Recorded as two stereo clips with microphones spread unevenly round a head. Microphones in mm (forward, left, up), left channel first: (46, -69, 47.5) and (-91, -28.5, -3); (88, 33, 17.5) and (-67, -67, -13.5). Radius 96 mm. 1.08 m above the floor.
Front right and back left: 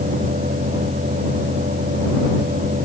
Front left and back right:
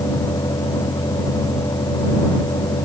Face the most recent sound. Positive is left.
turn(degrees=105)